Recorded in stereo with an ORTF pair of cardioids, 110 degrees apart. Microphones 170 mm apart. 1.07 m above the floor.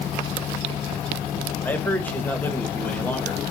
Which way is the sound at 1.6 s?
10° left.